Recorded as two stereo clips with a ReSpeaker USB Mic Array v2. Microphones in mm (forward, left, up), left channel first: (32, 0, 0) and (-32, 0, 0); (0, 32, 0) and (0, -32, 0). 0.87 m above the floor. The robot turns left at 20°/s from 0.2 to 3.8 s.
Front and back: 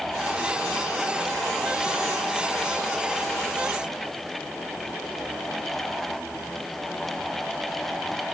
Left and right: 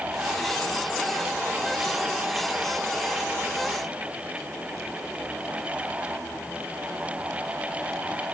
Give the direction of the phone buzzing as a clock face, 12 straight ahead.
No phone buzzing in this recording.